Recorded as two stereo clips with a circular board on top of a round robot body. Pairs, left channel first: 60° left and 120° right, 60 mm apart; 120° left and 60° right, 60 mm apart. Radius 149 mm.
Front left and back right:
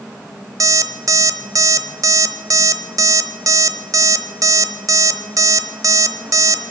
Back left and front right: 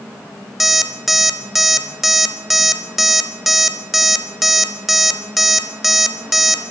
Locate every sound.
0.6 s an alarm clock: 150° right, 0.8 m